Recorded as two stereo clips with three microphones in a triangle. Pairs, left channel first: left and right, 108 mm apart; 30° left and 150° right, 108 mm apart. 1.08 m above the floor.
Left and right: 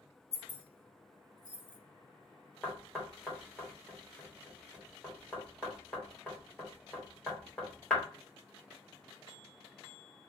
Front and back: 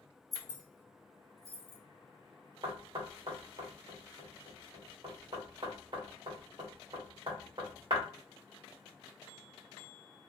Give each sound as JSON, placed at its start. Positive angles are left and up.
{"t": 0.3, "sound": "keys jangling", "azimuth_deg": 155, "distance_m": 0.7}
{"t": 2.6, "sound": "knocking", "azimuth_deg": 175, "distance_m": 1.2}